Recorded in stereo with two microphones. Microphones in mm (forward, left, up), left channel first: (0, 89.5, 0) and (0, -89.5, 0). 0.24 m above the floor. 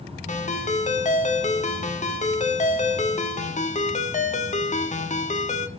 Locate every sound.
0.3 s a ringtone: 40° left (ahead or behind), 0.9 m